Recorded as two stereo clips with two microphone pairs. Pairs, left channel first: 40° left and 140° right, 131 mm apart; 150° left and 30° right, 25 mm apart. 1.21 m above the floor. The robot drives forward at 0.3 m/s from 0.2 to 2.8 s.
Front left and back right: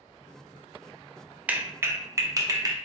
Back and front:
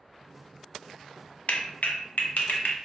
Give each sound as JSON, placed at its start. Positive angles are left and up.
{"t": 1.5, "sound": "a clap", "azimuth_deg": 135, "distance_m": 0.5}